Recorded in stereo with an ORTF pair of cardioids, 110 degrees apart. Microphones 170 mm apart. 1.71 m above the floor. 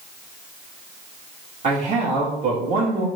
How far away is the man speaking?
About 3 m.